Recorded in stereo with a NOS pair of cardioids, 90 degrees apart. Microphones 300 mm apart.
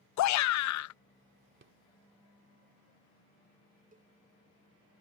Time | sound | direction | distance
0.2 | a shout | 60° left | ?
1.6 | a rattle | 40° right | ?
3.9 | a cowbell | 25° right | ?